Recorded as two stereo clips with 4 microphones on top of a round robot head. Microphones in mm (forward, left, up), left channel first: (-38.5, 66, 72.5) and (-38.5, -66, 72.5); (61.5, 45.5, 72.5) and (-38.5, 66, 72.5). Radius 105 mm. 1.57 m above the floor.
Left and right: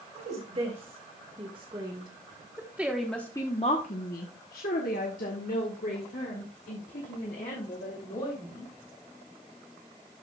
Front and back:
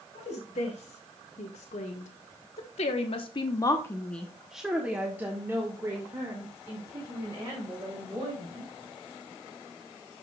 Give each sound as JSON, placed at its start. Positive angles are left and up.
{"t": 0.1, "sound": "a woman speaking", "azimuth_deg": -40, "distance_m": 2.5}